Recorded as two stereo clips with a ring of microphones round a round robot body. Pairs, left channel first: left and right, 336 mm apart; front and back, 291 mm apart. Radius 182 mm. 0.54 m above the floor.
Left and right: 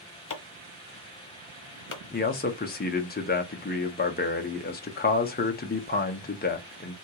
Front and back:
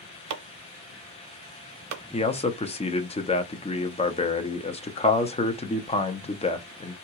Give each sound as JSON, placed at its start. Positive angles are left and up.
{"t": 0.3, "sound": "chopping", "azimuth_deg": 150, "distance_m": 0.8}
{"t": 2.1, "sound": "a man speaking", "azimuth_deg": 55, "distance_m": 0.7}